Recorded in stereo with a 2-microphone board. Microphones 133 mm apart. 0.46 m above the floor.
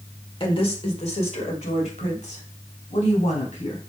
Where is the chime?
No chime in this recording.